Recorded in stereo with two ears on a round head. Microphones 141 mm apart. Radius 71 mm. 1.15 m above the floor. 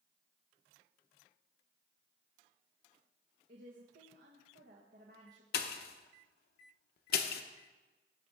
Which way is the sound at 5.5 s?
70° left (ahead or behind).